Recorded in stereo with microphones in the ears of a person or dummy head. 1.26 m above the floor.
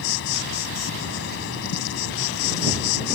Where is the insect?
65° left (ahead or behind).